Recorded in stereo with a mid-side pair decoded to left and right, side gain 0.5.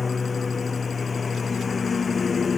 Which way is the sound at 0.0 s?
30° left.